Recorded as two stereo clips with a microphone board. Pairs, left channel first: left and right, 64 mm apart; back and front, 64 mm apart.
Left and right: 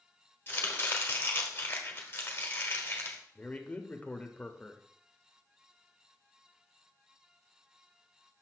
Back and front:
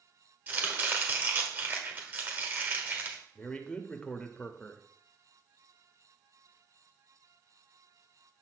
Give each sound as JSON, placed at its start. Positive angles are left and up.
{"t": 0.5, "sound": "chopping", "azimuth_deg": 45, "distance_m": 1.3}
{"t": 3.4, "sound": "a man speaking", "azimuth_deg": 125, "distance_m": 0.8}